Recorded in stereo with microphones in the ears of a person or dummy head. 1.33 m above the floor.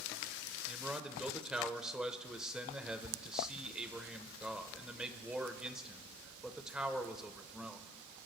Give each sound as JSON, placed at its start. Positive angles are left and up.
{"t": 0.7, "sound": "a man speaking", "side_deg": -5, "distance_m": 1.1}